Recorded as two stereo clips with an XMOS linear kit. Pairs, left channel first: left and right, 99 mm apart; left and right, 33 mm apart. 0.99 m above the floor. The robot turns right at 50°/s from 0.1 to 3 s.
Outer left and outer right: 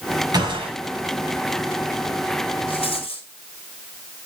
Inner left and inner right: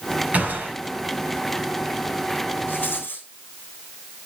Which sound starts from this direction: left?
A rattle, at 2.7 s.